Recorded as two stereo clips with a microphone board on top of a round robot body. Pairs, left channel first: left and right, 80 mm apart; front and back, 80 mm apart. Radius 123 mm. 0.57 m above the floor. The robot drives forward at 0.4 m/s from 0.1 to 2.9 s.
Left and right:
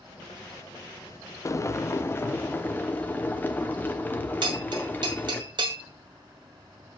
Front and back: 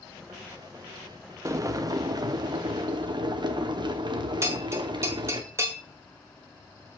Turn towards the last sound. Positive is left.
turn(degrees=-120)